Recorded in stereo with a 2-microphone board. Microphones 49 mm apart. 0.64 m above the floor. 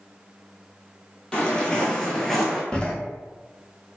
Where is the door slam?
20° left (ahead or behind), 0.5 m.